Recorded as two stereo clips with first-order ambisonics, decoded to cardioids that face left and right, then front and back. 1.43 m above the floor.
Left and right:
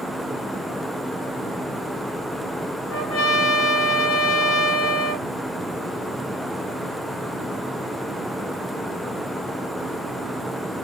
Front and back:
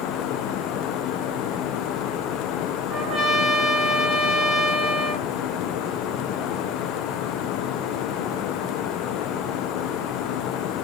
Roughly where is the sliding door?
No sliding door in this recording.